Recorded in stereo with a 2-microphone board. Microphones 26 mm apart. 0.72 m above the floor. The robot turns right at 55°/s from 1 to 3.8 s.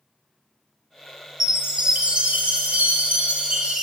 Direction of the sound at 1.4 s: 165° right.